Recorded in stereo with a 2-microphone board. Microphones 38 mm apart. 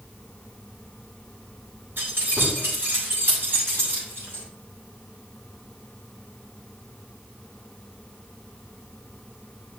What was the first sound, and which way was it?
Keys jangling, 70° right (ahead or behind).